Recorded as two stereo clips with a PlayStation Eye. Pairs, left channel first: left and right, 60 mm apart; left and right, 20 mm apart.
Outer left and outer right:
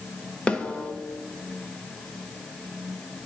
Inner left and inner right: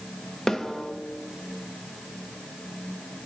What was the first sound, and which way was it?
A snare drum, 20° left (ahead or behind).